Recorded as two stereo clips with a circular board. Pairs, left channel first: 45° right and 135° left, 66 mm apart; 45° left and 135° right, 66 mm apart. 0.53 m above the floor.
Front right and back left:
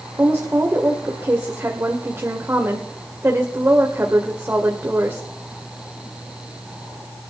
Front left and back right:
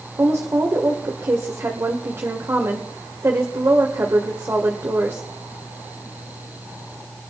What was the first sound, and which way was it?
A woman speaking, straight behind.